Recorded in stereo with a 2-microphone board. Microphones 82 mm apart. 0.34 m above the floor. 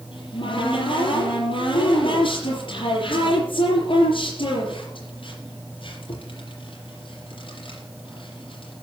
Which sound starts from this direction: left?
A cupboard door, at 0.1 s.